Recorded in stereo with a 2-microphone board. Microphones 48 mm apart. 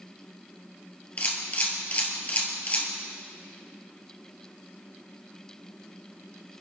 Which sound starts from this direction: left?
A camera shutter, at 1.2 s.